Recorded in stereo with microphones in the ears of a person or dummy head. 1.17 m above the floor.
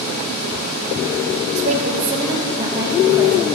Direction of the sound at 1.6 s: 40° right (ahead or behind).